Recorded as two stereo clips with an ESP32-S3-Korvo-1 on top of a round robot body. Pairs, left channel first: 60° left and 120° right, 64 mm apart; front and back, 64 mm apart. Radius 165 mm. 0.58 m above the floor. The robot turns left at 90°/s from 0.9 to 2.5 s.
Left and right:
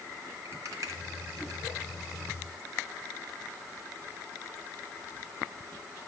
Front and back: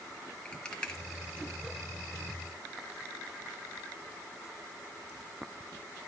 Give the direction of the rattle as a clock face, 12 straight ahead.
3 o'clock.